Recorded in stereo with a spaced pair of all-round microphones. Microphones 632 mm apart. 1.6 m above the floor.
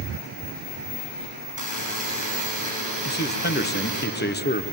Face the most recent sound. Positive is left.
turn(degrees=15)  # may be behind; listen again after turning